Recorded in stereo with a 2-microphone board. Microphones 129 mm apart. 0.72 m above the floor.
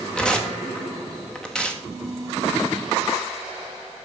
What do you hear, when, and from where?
0.1 s tearing paper: 10° left (ahead or behind), 1.1 m